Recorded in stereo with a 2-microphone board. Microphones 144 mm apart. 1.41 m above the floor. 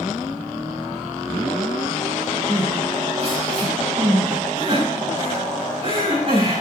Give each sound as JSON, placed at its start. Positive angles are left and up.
{"t": 2.5, "sound": "crying", "side_deg": -40, "distance_m": 7.0}